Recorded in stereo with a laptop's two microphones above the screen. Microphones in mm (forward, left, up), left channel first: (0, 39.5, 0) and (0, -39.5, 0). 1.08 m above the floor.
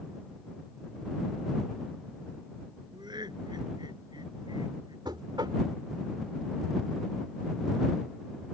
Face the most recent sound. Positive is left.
turn(degrees=-70)  # may be behind; listen again after turning